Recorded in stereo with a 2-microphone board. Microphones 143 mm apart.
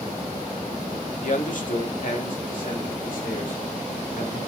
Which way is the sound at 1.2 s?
60° left (ahead or behind).